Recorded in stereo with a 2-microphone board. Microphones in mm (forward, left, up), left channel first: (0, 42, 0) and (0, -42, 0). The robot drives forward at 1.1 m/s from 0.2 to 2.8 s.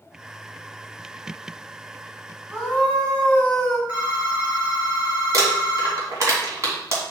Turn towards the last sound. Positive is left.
turn(degrees=-40)  # may be behind; listen again after turning